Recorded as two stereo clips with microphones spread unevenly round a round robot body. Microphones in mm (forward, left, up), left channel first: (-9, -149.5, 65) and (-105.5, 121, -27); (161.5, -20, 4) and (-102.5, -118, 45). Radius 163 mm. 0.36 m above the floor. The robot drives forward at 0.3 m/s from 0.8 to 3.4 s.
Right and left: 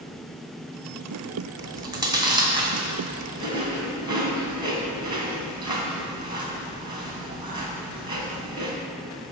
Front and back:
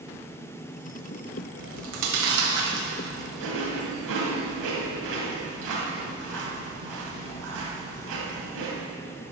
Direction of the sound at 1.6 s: 175° left.